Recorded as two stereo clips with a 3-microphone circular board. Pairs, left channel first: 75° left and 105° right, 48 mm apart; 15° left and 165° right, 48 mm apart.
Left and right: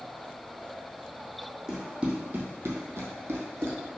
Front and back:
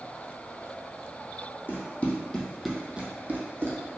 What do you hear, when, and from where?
1.7 s running footsteps: 30° right, 1.0 m; by 3.8 s 135° right, 1.1 m